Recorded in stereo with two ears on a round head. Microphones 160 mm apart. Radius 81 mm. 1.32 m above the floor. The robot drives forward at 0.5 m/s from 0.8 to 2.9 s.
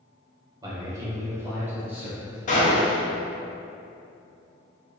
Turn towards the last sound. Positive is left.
turn(degrees=35)  # may be behind; listen again after turning